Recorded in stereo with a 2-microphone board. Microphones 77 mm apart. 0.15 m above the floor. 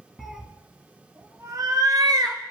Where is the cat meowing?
Centre (ahead or behind), 1.2 m; by 2.5 s 65° right (ahead or behind), 1.7 m.